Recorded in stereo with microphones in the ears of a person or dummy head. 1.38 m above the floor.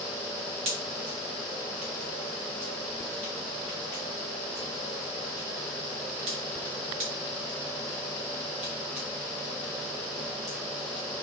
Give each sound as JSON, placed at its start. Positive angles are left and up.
{"t": 0.7, "sound": "a pop", "side_deg": -35, "distance_m": 0.9}